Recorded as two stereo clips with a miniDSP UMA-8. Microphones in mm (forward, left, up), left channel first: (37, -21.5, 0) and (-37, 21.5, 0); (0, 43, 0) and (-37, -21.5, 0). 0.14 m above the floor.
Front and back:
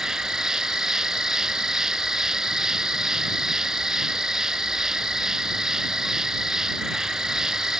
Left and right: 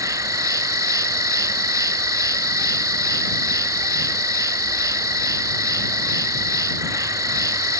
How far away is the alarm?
I don't hear an alarm.